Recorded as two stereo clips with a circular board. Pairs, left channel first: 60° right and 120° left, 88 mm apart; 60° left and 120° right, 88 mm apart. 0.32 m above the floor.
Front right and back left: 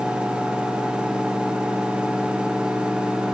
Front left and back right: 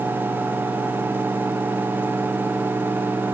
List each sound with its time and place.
Only background noise.